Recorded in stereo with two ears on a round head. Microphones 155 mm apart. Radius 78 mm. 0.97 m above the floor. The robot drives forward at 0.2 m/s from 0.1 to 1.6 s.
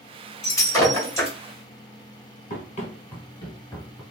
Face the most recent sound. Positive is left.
turn(degrees=15)  # may be behind; listen again after turning